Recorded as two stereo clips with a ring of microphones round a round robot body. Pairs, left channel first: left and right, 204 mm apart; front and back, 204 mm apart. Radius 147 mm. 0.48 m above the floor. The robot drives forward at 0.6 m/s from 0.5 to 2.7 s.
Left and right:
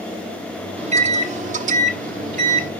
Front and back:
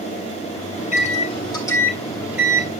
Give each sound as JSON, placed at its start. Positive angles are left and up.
{"t": 0.8, "sound": "a microwave", "azimuth_deg": -40, "distance_m": 1.4}